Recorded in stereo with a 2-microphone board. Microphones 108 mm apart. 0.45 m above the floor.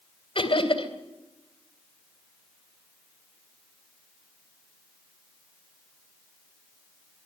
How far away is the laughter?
About 3 m.